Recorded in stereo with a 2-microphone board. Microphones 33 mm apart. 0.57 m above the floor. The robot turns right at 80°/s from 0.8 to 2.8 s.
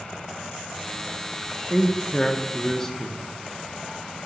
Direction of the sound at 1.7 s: 10° left (ahead or behind).